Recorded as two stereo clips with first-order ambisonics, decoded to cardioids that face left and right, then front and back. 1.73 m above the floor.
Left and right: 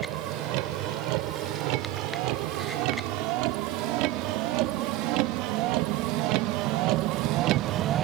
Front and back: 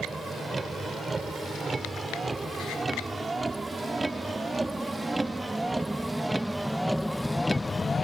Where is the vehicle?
100° right; by 8.0 s 60° right.